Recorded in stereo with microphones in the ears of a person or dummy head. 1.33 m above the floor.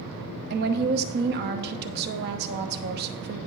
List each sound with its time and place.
0.5 s a woman speaking: 55° right (ahead or behind), 1.0 m